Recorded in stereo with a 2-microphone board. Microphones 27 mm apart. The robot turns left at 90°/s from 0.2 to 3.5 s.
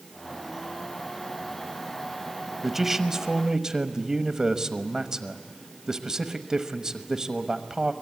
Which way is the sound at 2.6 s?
5° right (ahead or behind).